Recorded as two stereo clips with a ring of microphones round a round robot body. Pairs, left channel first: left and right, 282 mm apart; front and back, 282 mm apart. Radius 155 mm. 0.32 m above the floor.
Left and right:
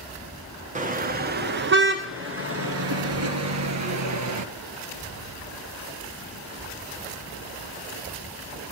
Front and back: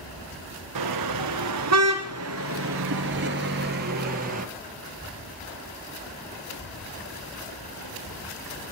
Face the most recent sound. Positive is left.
turn(degrees=-115)